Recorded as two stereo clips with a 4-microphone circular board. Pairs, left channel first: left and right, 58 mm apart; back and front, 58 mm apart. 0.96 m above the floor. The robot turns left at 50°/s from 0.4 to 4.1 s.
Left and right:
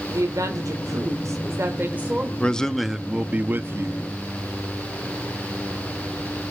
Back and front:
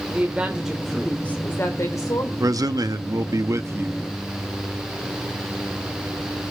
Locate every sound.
0.1 s a woman speaking: 70° right, 2.5 m; by 2.3 s 165° right, 2.5 m
2.4 s a man speaking: 20° left, 1.0 m; by 4.0 s 60° right, 1.0 m